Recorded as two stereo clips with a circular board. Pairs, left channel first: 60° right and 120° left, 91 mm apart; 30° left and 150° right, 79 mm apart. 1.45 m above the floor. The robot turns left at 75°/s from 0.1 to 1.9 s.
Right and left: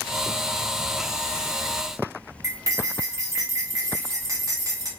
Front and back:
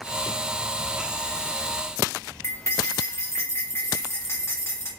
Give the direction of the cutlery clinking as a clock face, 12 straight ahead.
9 o'clock.